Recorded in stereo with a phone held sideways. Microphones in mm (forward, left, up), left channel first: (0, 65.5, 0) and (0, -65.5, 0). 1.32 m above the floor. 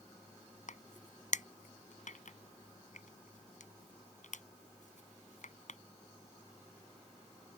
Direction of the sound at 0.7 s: 70° left (ahead or behind).